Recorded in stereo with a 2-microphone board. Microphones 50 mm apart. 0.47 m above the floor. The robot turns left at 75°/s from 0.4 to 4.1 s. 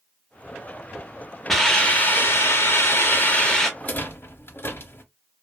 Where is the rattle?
30° left (ahead or behind), 0.6 m; by 5.0 s 50° left (ahead or behind), 0.6 m.